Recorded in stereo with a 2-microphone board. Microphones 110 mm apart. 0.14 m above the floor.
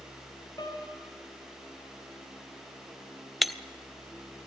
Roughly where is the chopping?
I don't hear chopping.